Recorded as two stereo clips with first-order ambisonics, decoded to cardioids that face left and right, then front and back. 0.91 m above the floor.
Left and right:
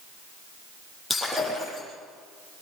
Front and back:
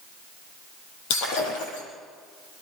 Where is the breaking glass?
5° left, 8.5 m.